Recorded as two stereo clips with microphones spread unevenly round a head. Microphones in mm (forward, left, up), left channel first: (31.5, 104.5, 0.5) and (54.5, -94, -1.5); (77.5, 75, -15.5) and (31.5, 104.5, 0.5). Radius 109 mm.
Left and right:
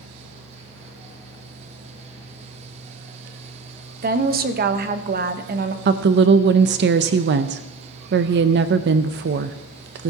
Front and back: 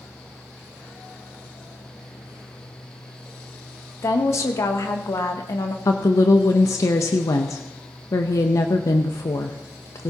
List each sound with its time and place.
4.0 s a woman speaking: 45° right, 1.0 m
5.8 s a woman speaking: 50° right, 0.6 m